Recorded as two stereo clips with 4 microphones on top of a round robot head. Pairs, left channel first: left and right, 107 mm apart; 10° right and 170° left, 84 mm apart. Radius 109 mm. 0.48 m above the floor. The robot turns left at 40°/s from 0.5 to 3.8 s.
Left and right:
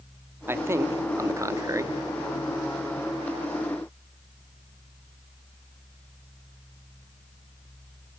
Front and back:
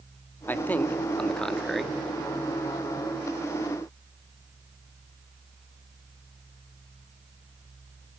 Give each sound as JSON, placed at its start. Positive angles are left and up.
{"t": 0.5, "sound": "a man speaking", "azimuth_deg": -50, "distance_m": 1.3}